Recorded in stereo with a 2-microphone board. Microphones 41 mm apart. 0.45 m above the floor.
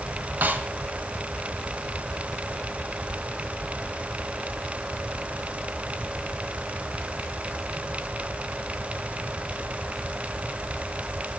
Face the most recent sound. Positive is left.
turn(degrees=-50)  # may be behind; listen again after turning